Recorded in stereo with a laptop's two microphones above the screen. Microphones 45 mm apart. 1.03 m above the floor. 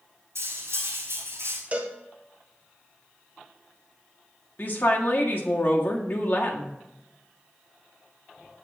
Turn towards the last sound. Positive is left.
turn(degrees=45)  # may be behind; listen again after turning